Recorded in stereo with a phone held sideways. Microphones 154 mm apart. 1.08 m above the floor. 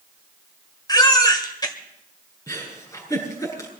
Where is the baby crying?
25° left (ahead or behind), 1.8 m.